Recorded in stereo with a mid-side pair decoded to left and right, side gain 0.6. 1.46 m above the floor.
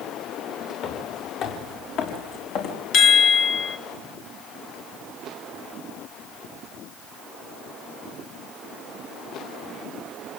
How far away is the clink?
No clink in this recording.